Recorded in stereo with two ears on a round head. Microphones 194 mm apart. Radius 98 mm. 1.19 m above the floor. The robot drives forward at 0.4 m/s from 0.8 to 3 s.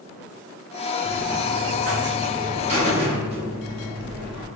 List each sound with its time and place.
1.0 s a buzzer: 45° right (ahead or behind), 0.9 m; by 4.5 s 30° right (ahead or behind), 1.4 m